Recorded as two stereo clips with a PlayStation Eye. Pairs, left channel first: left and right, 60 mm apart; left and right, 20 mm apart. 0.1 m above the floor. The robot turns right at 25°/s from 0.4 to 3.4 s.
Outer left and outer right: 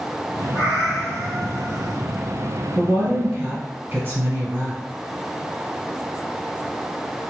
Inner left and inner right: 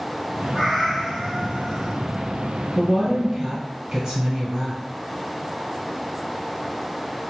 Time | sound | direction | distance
0.5 | a cat meowing | 30° left | 1.0 m
2.8 | a woman speaking | 35° right (ahead or behind) | 1.4 m